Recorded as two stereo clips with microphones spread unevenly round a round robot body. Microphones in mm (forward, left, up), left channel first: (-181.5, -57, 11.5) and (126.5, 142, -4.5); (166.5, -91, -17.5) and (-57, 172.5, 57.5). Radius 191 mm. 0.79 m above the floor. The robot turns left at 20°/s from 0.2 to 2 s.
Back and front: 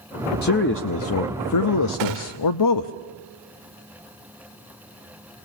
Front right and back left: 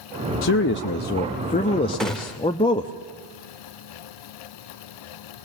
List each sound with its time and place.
0.4 s a man speaking: 85° right, 0.6 m; by 2.9 s 115° right, 0.6 m
2.0 s a gunshot: 35° left, 1.2 m